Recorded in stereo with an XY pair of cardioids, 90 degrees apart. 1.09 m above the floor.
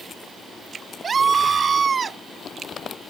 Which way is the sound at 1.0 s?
45° right.